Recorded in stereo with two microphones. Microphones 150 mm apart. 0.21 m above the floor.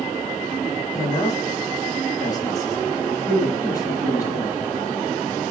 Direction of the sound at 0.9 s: 25° left (ahead or behind).